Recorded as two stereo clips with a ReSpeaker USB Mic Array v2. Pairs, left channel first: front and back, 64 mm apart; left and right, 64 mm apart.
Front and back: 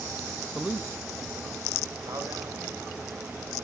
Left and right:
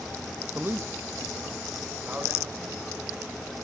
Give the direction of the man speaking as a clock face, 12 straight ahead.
3 o'clock.